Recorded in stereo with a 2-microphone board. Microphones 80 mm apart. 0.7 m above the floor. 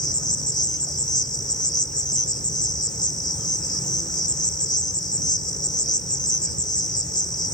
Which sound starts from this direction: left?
An insect, at 0.0 s.